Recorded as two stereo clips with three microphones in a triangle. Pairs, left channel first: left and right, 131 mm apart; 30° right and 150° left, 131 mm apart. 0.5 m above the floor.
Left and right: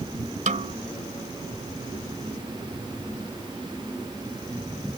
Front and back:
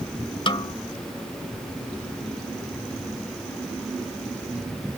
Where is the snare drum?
75° right.